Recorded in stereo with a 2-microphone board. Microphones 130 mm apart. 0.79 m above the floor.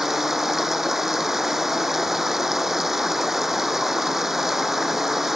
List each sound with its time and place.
0.0 s running water: 5° right (ahead or behind)